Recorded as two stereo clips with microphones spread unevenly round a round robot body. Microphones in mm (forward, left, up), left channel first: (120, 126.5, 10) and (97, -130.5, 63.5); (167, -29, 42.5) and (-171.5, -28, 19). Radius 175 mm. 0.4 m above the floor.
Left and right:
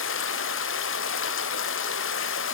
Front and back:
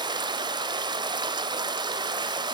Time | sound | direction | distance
0.0 | running water | 105° left | 0.9 m